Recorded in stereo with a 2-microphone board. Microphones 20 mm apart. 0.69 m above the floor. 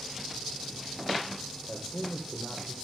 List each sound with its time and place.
1.7 s a man speaking: 15° left (ahead or behind), 3 m